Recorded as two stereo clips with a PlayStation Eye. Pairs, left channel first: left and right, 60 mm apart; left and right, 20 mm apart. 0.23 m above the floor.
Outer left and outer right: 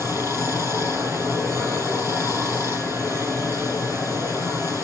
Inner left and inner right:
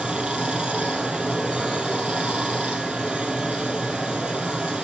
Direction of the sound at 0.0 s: 55° right (ahead or behind).